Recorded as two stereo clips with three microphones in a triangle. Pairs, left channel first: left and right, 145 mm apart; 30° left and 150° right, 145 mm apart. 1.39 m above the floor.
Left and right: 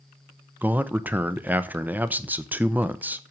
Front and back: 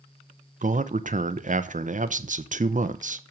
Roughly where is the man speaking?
Behind.